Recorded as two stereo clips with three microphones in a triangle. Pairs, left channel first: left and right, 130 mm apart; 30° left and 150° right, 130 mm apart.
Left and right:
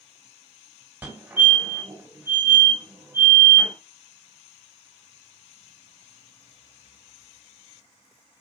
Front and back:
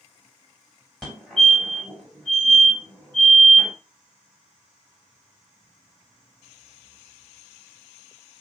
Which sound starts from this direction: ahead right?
A fire alarm, at 1.0 s.